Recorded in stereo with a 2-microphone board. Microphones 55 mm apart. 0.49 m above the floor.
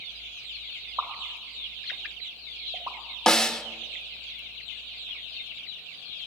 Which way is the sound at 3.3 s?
10° left (ahead or behind).